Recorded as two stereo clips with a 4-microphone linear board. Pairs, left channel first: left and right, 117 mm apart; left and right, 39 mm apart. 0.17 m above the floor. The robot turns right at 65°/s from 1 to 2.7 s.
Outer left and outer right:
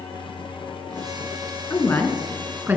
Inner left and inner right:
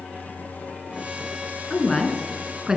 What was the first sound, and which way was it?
A woman speaking, 140° left.